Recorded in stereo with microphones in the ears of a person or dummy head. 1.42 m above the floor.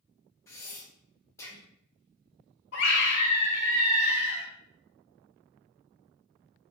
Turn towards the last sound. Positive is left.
turn(degrees=60)  # may be behind; listen again after turning